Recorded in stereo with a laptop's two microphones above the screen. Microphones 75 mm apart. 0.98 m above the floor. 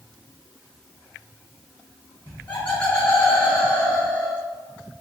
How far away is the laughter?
About 1.4 m.